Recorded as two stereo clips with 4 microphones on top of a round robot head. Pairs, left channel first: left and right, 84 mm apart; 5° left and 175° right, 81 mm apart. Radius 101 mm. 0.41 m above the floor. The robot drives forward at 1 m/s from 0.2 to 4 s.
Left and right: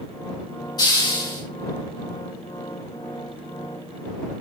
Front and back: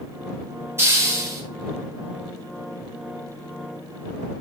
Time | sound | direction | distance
0.8 | a hiss | 125° left | 3 m